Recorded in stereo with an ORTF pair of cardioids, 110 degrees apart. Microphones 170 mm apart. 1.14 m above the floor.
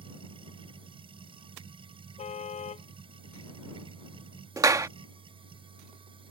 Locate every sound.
0.0 s a machine running: 30° right
2.2 s a car horn: 40° left
4.6 s a clap: 20° right